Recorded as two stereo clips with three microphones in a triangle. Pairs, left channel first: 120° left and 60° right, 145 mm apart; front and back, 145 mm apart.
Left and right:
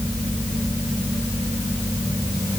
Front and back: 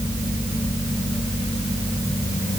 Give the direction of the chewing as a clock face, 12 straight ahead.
No chewing in this recording.